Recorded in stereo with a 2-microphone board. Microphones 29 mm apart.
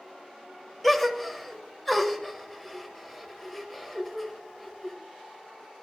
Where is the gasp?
5° left (ahead or behind), 1.2 m.